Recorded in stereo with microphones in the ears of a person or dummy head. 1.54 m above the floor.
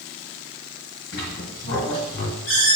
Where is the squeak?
40° left (ahead or behind), 1.7 m.